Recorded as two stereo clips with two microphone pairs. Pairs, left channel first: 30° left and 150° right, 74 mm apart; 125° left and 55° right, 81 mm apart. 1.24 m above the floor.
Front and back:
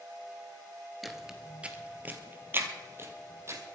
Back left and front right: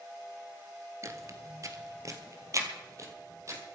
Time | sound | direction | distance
1.0 | footsteps | 60° right | 1.4 m